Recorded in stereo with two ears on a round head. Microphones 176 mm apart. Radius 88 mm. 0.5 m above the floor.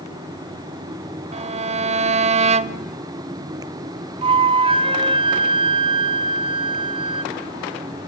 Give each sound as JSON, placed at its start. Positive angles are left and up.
{"t": 1.3, "sound": "a violin", "side_deg": -35, "distance_m": 0.5}
{"t": 4.2, "sound": "a flute", "side_deg": -25, "distance_m": 1.0}